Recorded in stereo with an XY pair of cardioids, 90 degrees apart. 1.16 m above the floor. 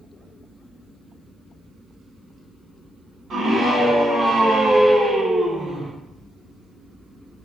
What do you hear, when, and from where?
3.3 s a scream: 55° right, 5.5 m; by 5.9 s 45° right, 4.5 m